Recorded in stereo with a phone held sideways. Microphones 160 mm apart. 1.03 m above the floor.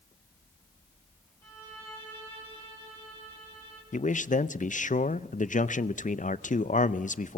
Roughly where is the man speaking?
Left.